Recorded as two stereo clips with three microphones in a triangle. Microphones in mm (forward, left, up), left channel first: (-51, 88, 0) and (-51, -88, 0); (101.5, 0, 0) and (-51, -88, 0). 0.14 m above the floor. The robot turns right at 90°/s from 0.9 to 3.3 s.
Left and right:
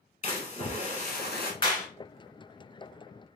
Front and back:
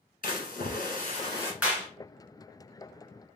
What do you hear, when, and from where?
0.2 s a splash: 55° left, 1.3 m; by 1.5 s 110° left, 1.3 m
1.6 s a clap: 130° left, 1.6 m; by 1.9 s 155° left, 1.6 m